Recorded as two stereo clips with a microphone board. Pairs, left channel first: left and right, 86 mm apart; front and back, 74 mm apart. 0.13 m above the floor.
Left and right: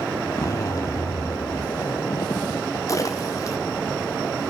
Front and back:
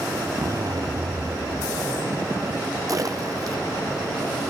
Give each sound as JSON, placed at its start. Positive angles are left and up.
{"t": 0.3, "sound": "a zipper", "azimuth_deg": 140, "distance_m": 1.0}
{"t": 2.9, "sound": "a splash", "azimuth_deg": 140, "distance_m": 2.5}